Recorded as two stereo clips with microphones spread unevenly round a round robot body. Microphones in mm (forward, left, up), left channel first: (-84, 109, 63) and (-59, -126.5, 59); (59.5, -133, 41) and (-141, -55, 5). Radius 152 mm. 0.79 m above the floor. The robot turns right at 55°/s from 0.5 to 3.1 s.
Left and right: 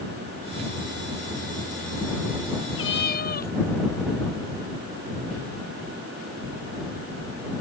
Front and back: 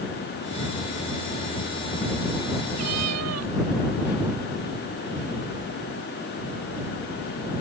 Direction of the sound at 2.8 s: 130° left.